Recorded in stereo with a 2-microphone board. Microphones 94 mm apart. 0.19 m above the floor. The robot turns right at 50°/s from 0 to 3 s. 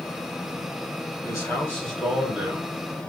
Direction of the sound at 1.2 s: 125° left.